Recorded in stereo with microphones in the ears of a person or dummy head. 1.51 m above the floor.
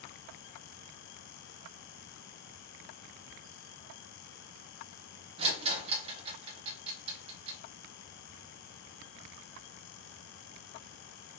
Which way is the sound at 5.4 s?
40° right (ahead or behind).